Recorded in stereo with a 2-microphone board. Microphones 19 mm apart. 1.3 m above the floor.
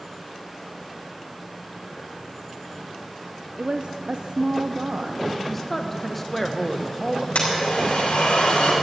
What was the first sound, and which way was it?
A woman speaking, 50° right (ahead or behind).